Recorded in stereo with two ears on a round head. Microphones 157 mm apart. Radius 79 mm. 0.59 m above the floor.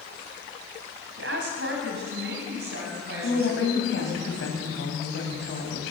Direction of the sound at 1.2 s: 75° right (ahead or behind).